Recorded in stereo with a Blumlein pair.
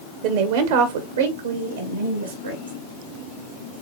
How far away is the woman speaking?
About 1.0 m.